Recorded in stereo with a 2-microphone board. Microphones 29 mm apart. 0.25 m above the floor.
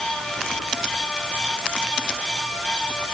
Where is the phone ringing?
I don't hear a phone ringing.